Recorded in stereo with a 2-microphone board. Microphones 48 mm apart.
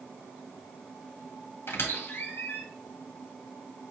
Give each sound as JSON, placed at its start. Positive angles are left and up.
{"t": 1.7, "sound": "a squeak", "side_deg": 70, "distance_m": 1.7}